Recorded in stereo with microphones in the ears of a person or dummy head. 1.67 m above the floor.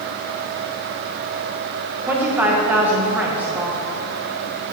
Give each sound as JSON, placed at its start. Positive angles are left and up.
{"t": 2.0, "sound": "a woman speaking", "side_deg": -5, "distance_m": 1.2}